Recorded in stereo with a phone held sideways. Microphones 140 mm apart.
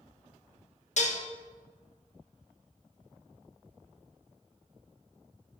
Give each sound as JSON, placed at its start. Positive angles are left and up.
{"t": 1.0, "sound": "dishes clattering", "side_deg": 60, "distance_m": 0.8}